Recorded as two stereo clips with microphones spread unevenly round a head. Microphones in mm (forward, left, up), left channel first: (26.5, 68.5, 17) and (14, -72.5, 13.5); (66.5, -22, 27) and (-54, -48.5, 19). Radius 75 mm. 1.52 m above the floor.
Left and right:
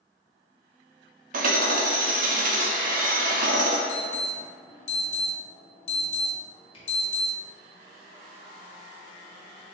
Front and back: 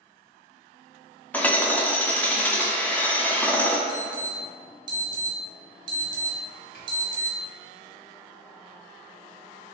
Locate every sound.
1.3 s hammering: 65° right, 0.8 m
3.9 s an alarm: 135° left, 1.1 m
6.7 s a camera shutter: 35° left, 1.7 m